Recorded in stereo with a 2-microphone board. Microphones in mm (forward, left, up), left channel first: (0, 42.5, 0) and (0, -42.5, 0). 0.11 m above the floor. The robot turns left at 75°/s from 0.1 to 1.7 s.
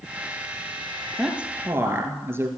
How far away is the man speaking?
About 2.0 m.